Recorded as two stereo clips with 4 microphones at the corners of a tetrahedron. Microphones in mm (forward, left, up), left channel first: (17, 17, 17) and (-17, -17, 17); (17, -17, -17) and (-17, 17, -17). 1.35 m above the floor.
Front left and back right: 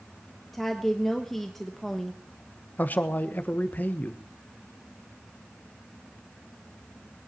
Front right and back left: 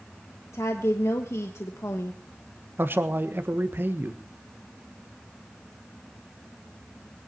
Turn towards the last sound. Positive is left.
turn(degrees=95)